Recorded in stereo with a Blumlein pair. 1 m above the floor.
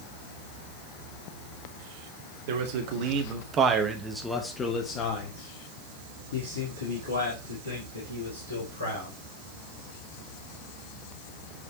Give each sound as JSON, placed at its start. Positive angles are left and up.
{"t": 2.5, "sound": "a man speaking", "azimuth_deg": -50, "distance_m": 1.7}